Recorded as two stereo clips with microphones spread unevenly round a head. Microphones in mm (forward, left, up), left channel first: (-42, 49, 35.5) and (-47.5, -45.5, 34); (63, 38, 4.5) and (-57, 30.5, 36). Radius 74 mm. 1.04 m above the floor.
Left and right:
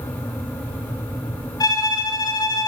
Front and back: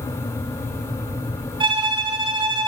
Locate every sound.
1.6 s a violin: 135° left, 5 m